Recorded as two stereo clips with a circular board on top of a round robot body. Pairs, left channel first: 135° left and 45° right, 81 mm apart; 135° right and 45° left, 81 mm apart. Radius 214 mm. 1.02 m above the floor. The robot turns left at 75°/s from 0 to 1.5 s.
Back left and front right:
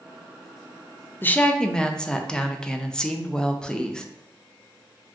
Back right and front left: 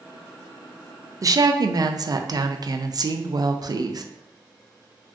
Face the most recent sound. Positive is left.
turn(degrees=55)